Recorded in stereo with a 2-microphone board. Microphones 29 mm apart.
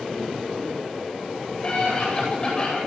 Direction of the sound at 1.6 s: 30° left (ahead or behind).